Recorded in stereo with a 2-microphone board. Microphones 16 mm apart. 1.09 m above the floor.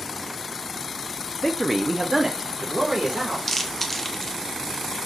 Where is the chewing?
10° left (ahead or behind), 0.6 m.